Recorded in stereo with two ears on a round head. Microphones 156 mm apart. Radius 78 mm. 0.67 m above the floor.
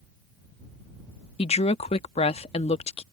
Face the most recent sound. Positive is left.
turn(degrees=35)  # may be behind; listen again after turning